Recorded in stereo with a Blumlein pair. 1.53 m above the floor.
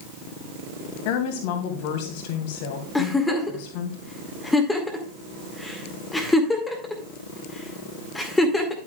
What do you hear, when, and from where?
1.1 s a woman speaking: 50° left, 2.5 m
3.0 s a giggle: 5° left, 2 m